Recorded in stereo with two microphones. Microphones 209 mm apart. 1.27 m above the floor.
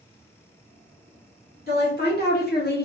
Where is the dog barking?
I don't hear a dog barking.